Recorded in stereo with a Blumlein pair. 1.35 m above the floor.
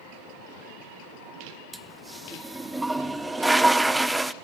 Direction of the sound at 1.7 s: 5° right.